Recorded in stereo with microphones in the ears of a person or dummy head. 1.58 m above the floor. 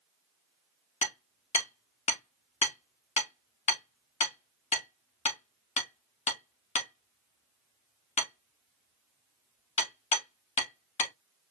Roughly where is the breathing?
I don't hear breathing.